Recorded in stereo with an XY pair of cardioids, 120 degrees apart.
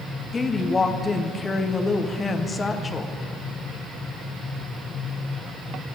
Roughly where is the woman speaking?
Ahead left.